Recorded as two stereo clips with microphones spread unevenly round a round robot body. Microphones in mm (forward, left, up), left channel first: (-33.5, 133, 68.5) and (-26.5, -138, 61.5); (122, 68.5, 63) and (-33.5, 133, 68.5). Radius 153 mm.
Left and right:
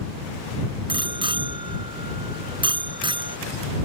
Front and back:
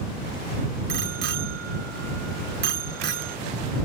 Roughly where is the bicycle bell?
Behind.